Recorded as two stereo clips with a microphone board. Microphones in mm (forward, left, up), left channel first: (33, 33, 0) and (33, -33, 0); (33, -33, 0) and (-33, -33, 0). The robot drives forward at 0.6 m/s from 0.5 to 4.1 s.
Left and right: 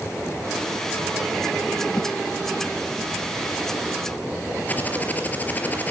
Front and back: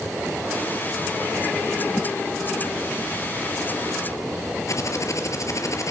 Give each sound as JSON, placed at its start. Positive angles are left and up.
{"t": 2.0, "sound": "a whoosh", "azimuth_deg": 105, "distance_m": 1.4}
{"t": 4.7, "sound": "typing on a keyboard", "azimuth_deg": 30, "distance_m": 3.5}